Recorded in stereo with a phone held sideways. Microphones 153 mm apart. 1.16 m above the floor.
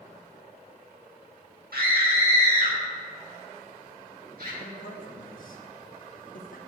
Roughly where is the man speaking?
Left.